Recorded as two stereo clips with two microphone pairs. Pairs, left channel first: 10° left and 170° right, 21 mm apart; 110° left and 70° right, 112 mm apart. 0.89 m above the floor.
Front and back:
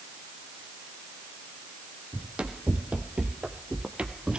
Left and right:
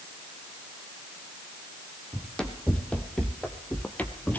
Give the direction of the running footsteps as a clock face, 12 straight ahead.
6 o'clock.